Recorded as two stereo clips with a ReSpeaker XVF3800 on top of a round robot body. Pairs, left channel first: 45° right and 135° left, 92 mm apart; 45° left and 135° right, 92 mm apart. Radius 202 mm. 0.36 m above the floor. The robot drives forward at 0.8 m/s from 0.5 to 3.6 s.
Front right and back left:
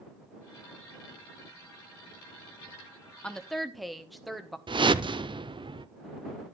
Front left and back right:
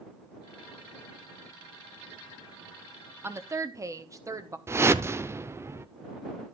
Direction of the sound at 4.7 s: 160° left.